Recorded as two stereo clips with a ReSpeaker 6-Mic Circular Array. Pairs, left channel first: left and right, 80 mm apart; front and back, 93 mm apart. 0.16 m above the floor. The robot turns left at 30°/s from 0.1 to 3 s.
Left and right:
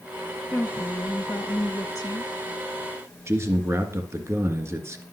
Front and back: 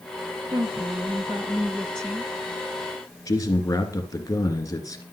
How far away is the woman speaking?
About 2 m.